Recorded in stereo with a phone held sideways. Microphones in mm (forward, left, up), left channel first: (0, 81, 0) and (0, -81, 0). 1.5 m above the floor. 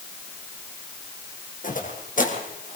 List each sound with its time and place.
1.6 s footsteps: 55° left (ahead or behind), 4 m